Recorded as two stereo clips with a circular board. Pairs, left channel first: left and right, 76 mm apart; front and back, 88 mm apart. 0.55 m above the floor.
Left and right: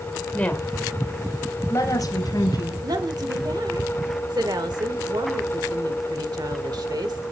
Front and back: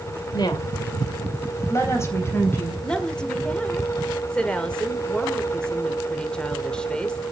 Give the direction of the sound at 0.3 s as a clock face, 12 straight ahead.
11 o'clock.